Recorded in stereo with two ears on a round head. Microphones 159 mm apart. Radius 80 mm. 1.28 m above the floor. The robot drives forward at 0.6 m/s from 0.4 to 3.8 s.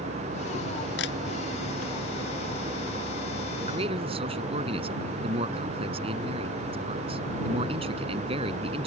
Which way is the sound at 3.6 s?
30° right (ahead or behind).